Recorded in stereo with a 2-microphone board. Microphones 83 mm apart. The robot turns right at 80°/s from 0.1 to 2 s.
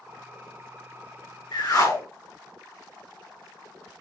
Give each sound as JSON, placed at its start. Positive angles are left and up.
{"t": 1.5, "sound": "a whoosh", "azimuth_deg": 100, "distance_m": 2.0}